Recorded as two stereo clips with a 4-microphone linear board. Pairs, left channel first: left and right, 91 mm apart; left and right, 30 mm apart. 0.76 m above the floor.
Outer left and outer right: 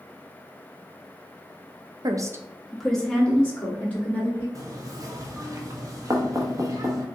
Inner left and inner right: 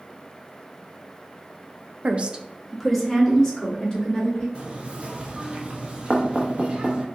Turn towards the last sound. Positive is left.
turn(degrees=-40)  # may be behind; listen again after turning